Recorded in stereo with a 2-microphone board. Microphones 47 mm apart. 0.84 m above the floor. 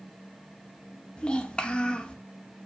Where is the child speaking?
25° left (ahead or behind), 0.7 m.